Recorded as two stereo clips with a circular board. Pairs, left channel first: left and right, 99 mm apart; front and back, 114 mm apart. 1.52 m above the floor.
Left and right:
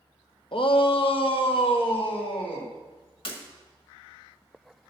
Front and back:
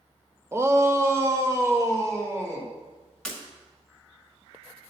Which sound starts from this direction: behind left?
A shout, at 0.5 s.